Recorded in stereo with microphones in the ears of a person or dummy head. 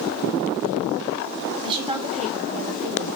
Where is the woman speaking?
20° right (ahead or behind), 3.5 m; by 3.1 s 45° right (ahead or behind), 2.5 m.